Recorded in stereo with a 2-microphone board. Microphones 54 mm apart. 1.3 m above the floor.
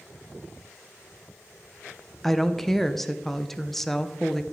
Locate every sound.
2.2 s a woman speaking: 5° left (ahead or behind), 0.9 m